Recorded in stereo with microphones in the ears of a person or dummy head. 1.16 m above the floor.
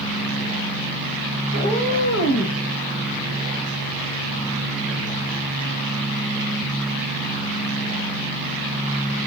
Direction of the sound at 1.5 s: 30° left (ahead or behind).